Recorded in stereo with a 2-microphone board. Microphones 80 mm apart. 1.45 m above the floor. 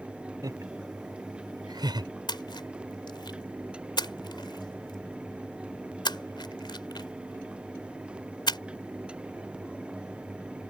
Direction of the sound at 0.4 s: 50° right (ahead or behind).